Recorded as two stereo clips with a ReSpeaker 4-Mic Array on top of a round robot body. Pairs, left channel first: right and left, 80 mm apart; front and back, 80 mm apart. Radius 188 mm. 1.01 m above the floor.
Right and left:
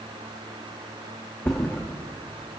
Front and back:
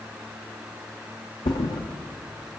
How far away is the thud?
About 0.6 m.